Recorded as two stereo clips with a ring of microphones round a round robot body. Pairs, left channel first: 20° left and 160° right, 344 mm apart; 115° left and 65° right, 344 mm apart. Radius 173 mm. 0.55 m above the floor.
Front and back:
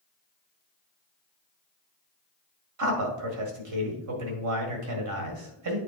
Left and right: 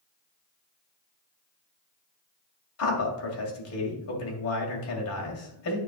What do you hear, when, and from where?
2.8 s a man speaking: 160° left, 2 m